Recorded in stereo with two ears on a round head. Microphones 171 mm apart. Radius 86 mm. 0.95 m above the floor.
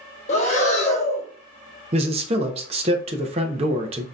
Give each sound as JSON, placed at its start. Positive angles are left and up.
{"t": 0.3, "sound": "breathing", "side_deg": 35, "distance_m": 0.7}
{"t": 1.9, "sound": "a man speaking", "side_deg": -30, "distance_m": 0.5}